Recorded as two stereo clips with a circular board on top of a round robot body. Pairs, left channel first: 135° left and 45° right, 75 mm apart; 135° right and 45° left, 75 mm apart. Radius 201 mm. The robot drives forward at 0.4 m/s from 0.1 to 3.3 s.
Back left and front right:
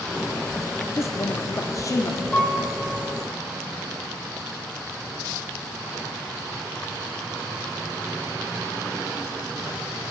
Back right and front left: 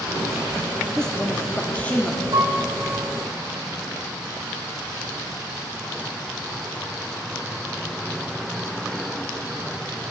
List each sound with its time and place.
1.0 s a woman speaking: 145° left, 1.1 m; by 2.2 s 160° left, 1.4 m
2.3 s a piano: 55° left, 5 m